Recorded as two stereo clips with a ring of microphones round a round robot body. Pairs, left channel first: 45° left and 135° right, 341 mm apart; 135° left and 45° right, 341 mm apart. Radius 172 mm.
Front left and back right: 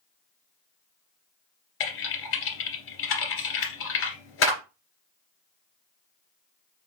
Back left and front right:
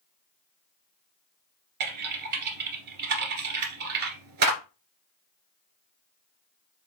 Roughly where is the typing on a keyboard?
Ahead.